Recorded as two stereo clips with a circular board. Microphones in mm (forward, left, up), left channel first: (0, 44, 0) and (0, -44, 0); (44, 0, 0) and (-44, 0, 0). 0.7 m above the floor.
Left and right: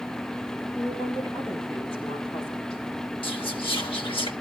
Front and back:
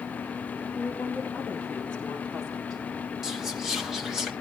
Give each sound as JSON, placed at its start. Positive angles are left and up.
{"t": 0.8, "sound": "a woman speaking", "azimuth_deg": 65, "distance_m": 5.5}
{"t": 3.2, "sound": "whispering", "azimuth_deg": 95, "distance_m": 2.0}